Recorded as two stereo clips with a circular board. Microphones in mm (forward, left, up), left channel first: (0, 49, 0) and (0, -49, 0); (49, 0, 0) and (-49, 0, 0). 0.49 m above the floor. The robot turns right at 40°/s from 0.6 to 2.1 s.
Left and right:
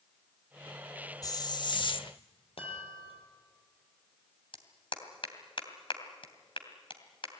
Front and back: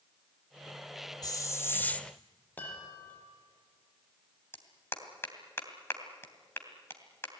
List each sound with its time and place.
1.2 s a hiss: 45° left, 0.9 m; by 2.1 s 80° left, 0.9 m
2.6 s a chime: 70° left, 6 m
4.5 s a clap: 65° left, 2.5 m